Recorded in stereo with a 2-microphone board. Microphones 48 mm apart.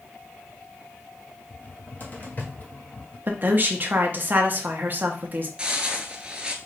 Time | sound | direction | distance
1.5 | a cupboard door | 35° left (ahead or behind) | 1.3 m
3.3 | a woman speaking | 40° right (ahead or behind) | 1.1 m
5.6 | footsteps | 15° right (ahead or behind) | 0.8 m